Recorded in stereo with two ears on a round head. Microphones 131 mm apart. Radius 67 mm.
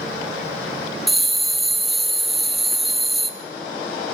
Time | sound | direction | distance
1.1 | a bell | centre (ahead or behind) | 0.8 m